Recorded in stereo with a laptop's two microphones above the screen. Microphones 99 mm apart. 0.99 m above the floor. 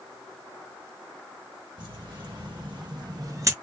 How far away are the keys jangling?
About 1.6 m.